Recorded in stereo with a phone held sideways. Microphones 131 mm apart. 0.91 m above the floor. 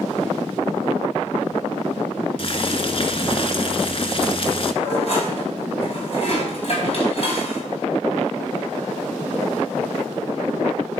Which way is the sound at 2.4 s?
45° left (ahead or behind).